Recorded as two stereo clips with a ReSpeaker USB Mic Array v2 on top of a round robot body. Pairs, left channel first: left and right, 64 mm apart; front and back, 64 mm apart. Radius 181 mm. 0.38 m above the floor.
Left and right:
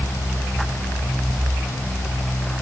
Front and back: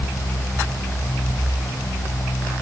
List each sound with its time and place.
Only background noise.